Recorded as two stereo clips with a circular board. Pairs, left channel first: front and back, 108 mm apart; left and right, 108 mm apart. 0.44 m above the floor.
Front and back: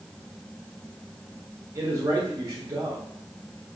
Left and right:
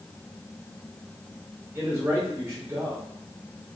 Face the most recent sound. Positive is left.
turn(degrees=-140)